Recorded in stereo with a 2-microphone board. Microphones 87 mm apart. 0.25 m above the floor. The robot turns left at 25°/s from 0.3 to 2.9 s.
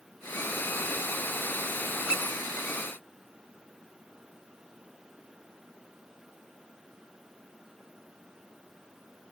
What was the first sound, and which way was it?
A squeak, 15° right (ahead or behind).